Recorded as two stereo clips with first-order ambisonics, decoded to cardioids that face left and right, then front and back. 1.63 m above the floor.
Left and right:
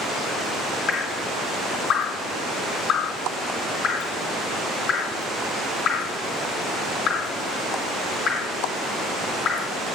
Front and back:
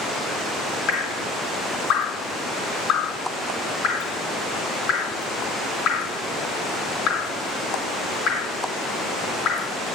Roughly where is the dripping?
Ahead left.